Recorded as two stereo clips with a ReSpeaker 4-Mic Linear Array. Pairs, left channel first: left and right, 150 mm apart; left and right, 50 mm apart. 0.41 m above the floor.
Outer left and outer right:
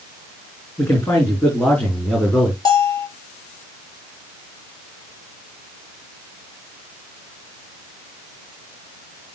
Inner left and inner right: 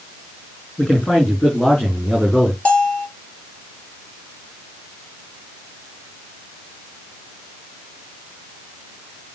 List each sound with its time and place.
0.8 s a man speaking: 15° left (ahead or behind), 4.5 m; by 2.5 s 5° left (ahead or behind), 4.5 m
2.6 s a bell: 25° left (ahead or behind), 2.5 m